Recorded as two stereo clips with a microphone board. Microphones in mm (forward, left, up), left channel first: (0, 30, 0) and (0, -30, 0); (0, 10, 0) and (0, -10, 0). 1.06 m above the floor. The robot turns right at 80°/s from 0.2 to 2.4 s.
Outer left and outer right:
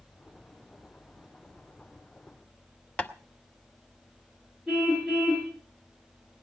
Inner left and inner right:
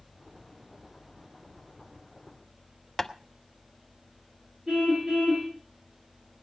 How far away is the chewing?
I don't hear chewing.